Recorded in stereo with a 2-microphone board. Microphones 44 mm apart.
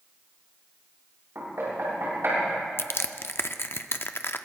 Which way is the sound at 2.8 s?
60° left (ahead or behind).